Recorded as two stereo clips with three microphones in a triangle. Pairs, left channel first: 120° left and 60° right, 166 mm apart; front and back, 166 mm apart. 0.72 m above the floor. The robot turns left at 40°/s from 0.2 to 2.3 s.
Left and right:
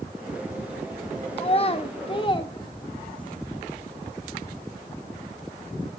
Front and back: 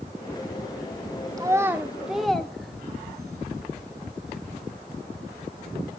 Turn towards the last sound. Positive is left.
turn(degrees=90)